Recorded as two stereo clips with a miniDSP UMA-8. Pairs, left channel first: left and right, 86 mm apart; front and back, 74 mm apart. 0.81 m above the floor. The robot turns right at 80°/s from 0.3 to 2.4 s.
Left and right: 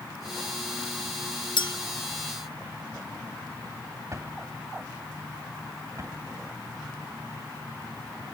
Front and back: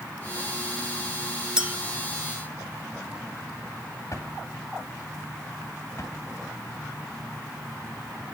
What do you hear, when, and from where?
1.6 s a clink: 100° left, 0.6 m; by 1.7 s 115° left, 0.6 m
4.1 s a drawer: 40° right, 2.5 m